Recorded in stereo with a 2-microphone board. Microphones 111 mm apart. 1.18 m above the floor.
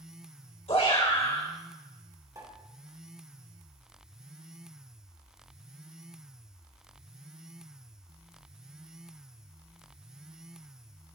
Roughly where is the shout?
Left.